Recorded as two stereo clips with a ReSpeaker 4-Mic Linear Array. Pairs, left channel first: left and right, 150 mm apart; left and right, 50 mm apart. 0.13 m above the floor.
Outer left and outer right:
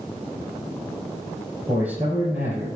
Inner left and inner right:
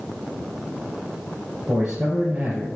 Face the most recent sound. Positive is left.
turn(degrees=-10)  # may be behind; listen again after turning